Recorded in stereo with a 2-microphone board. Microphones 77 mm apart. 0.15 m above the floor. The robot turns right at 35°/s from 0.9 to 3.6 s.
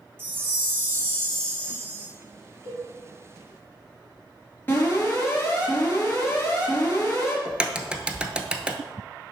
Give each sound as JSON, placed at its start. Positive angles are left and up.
{"t": 0.2, "sound": "a chime", "azimuth_deg": -125, "distance_m": 1.4}
{"t": 2.6, "sound": "a cowbell", "side_deg": -45, "distance_m": 3.5}
{"t": 4.7, "sound": "an alarm", "side_deg": 25, "distance_m": 3.0}
{"t": 7.5, "sound": "a crack", "side_deg": -15, "distance_m": 0.6}